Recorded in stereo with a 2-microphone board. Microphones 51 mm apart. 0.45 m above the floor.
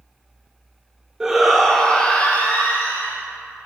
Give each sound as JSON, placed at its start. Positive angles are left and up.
{"t": 1.2, "sound": "a shout", "side_deg": -10, "distance_m": 0.9}